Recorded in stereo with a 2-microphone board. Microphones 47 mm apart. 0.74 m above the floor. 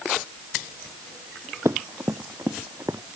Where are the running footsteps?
70° right (ahead or behind); by 3.0 s 65° right (ahead or behind).